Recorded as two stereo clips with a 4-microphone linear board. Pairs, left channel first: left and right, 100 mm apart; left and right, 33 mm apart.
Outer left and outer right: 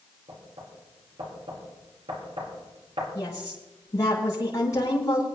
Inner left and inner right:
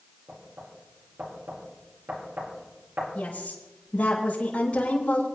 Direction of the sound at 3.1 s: 35° left (ahead or behind).